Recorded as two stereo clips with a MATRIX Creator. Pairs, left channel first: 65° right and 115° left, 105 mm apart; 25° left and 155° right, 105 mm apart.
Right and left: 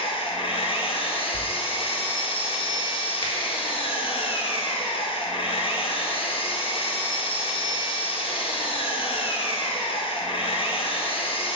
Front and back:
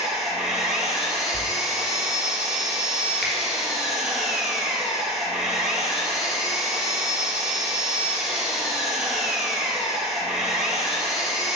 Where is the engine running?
70° right, 0.9 m.